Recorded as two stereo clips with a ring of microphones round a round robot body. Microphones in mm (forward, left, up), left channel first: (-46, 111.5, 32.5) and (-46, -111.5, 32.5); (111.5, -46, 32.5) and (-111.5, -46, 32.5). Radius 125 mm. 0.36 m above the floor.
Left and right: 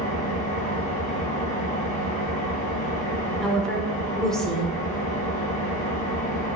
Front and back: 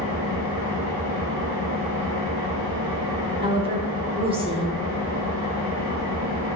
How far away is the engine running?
About 2.5 m.